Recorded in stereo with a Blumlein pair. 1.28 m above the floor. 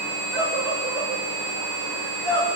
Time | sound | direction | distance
0.3 | a scream | 30° right | 5.5 m